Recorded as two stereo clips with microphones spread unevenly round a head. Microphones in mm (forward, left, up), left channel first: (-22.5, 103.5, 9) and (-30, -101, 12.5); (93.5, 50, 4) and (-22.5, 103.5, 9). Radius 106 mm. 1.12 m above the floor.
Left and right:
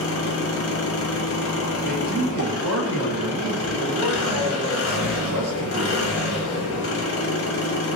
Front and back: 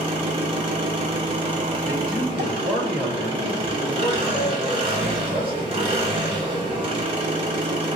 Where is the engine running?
105° left, 0.8 m.